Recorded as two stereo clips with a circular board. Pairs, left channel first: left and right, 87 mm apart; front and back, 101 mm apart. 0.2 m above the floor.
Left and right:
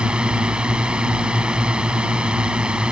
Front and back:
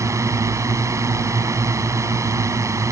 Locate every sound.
0.0 s a drone: 160° right